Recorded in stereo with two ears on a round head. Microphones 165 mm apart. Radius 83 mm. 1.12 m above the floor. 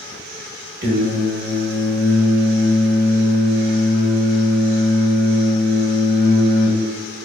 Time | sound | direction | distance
0.8 | singing | 55° right (ahead or behind) | 0.9 m